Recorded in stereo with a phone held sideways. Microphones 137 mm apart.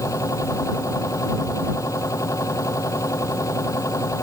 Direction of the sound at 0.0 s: 20° left (ahead or behind).